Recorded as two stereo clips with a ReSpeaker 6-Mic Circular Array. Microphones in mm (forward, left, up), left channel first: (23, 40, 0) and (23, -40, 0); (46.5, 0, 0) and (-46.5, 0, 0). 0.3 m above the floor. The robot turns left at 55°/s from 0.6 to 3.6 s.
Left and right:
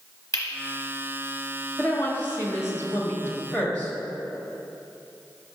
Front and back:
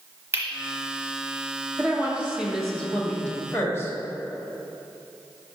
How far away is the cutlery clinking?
About 1.0 m.